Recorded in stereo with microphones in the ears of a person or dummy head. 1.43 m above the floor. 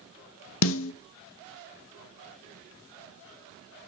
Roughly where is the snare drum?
Left.